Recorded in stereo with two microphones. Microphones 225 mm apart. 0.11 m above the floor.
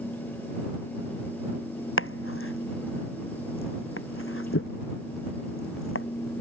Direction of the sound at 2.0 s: 70° left (ahead or behind).